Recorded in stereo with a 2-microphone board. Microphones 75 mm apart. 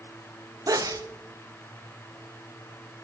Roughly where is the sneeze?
Right.